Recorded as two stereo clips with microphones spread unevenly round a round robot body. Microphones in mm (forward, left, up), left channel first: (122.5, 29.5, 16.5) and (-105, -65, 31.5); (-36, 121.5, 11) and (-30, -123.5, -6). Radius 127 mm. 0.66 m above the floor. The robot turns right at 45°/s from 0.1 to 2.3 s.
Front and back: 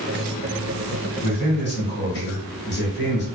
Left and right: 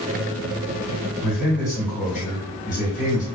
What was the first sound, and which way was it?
A man speaking, 10° right.